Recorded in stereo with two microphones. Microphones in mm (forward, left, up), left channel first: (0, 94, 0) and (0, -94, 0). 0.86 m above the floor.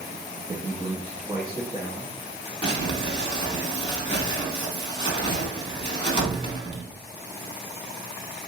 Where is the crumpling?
25° left (ahead or behind), 1.2 m.